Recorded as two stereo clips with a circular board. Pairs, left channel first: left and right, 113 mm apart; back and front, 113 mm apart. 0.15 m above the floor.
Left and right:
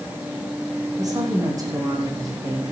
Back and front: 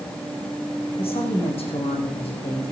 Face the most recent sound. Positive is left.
turn(degrees=-150)